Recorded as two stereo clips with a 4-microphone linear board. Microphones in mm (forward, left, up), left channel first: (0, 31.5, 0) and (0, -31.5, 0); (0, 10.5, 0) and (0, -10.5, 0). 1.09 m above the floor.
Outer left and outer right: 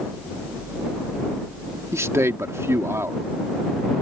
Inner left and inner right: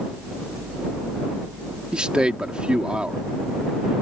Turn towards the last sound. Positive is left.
turn(degrees=-45)  # may be behind; listen again after turning